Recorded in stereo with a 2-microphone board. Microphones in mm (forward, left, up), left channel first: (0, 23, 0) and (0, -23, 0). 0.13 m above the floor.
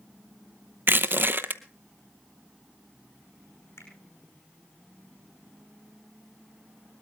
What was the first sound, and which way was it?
Crushing, 50° right (ahead or behind).